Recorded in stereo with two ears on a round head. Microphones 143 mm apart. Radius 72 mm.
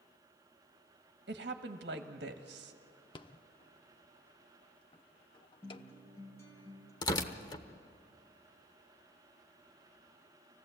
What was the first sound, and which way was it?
A woman speaking, 60° right (ahead or behind).